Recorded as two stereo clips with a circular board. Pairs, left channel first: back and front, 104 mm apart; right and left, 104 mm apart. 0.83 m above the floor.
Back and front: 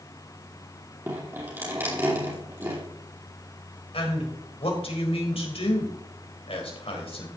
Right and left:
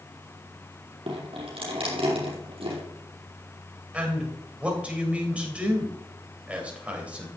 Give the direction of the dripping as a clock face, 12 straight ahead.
10 o'clock.